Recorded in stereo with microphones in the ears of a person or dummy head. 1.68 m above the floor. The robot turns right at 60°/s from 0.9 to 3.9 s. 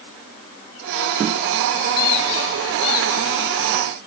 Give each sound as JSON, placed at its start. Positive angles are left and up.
{"t": 2.0, "sound": "a squeak", "azimuth_deg": 85, "distance_m": 4.0}